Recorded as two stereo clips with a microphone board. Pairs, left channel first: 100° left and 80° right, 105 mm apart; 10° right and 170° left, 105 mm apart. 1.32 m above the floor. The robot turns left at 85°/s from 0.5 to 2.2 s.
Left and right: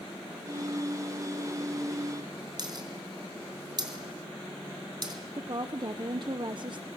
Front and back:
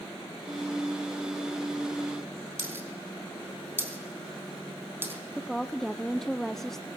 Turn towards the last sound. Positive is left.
turn(degrees=-95)